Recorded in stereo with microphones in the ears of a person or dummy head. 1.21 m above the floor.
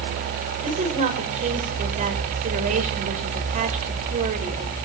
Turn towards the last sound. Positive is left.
turn(degrees=-40)  # may be behind; listen again after turning